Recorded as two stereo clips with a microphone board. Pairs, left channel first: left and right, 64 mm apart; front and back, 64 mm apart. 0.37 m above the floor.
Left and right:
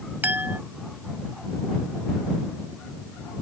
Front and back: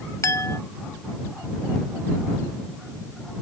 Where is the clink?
35° right.